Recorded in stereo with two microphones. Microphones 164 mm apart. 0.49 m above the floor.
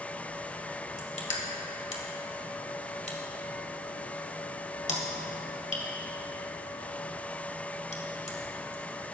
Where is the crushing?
45° left (ahead or behind), 1.6 m.